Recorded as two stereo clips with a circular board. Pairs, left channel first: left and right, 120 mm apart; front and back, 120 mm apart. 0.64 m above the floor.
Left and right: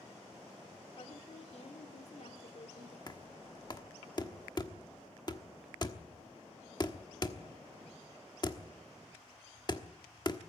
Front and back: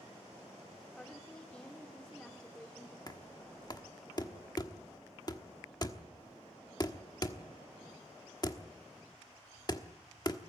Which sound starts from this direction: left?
A woman speaking, at 1.0 s.